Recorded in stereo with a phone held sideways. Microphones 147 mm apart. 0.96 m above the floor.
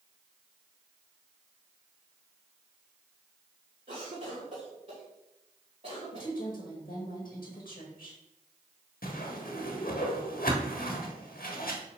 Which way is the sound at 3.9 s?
50° right (ahead or behind).